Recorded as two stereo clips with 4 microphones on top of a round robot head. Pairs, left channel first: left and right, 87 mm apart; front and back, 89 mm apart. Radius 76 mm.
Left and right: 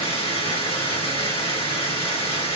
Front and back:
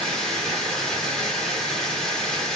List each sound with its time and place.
0.0 s running water: 80° left, 1.2 m